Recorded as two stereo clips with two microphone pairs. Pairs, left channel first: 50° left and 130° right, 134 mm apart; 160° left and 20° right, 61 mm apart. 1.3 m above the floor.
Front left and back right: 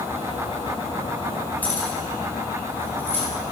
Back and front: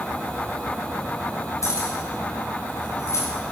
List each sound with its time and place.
1.6 s keys jangling: 130° left, 3.5 m; by 3.2 s 125° left, 4.5 m